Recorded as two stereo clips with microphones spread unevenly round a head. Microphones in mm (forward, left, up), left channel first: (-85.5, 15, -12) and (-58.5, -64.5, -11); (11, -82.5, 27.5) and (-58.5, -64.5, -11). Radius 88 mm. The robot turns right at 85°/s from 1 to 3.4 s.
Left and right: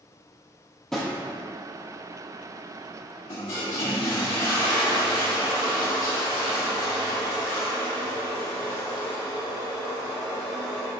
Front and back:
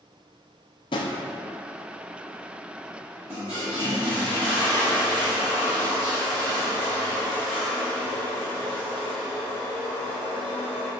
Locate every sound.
0.9 s a drawer: 20° left, 0.5 m; by 1.2 s 35° left, 0.5 m
3.3 s a toilet flushing: 75° left, 1.6 m; by 10.9 s 80° left, 1.6 m